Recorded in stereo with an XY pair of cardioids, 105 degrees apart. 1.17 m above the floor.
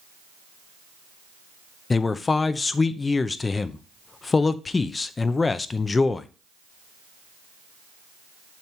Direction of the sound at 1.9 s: 30° left.